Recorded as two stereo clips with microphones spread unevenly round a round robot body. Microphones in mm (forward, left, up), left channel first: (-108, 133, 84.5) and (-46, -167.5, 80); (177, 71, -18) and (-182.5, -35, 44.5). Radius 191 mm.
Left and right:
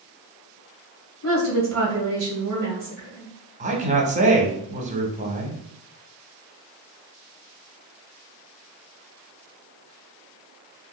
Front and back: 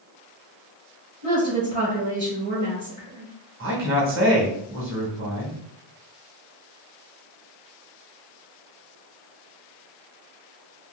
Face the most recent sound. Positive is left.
turn(degrees=-120)